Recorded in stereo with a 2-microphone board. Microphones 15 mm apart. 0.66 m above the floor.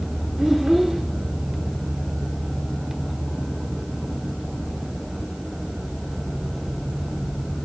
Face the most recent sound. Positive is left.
turn(degrees=-35)  # may be behind; listen again after turning